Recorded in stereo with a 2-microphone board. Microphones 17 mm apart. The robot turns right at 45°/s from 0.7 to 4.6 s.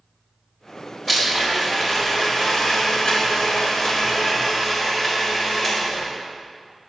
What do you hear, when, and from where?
1.1 s a blender: 15° left, 3.5 m; by 6.1 s 175° left, 3.5 m